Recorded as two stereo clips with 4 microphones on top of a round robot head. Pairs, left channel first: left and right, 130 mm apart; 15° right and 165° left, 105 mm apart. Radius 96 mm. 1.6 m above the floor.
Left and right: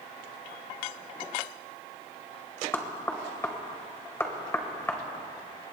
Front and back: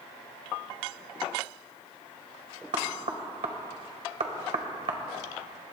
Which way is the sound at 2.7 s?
160° left.